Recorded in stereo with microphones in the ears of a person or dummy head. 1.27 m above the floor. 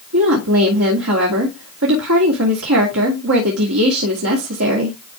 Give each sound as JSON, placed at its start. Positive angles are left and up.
{"t": 0.1, "sound": "a woman speaking", "side_deg": -80, "distance_m": 2.5}